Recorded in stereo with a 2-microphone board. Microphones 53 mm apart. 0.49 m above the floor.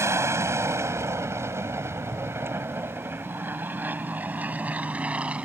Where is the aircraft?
65° right (ahead or behind); by 5.5 s 25° right (ahead or behind).